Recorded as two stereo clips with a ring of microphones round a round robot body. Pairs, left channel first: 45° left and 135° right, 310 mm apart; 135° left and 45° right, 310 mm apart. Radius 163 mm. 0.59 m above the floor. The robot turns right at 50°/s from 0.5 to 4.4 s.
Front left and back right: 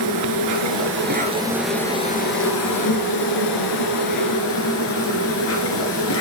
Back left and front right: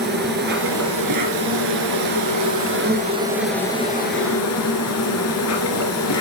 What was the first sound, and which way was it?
An insect, 105° right.